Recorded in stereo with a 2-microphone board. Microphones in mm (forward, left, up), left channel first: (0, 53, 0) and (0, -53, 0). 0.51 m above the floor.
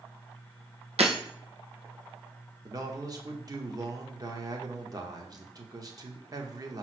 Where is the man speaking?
35° right (ahead or behind), 1.0 m.